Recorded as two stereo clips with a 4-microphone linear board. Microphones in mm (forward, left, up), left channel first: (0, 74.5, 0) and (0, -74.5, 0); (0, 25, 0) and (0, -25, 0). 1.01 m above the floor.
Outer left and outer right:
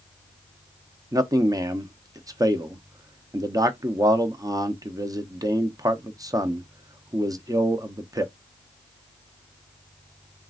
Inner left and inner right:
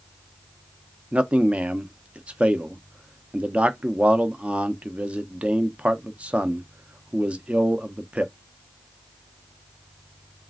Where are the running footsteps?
I don't hear running footsteps.